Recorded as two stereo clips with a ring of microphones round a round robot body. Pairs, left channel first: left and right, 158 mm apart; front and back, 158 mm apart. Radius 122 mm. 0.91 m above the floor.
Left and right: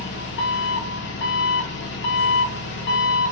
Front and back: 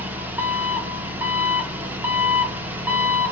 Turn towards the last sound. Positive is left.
turn(degrees=100)